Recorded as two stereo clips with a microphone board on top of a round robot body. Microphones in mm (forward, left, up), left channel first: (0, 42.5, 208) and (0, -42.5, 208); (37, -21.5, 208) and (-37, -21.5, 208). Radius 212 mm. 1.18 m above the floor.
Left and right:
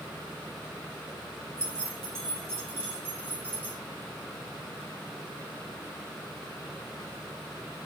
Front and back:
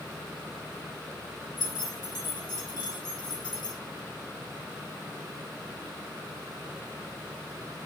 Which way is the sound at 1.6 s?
30° right.